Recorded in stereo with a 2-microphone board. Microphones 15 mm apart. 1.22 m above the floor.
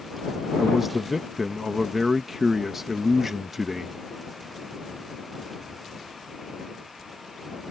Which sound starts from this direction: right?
A man speaking, at 0.6 s.